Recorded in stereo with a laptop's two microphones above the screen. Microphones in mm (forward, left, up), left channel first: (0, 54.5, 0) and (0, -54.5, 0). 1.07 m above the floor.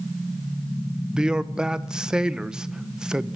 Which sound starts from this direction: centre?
A man speaking, at 1.1 s.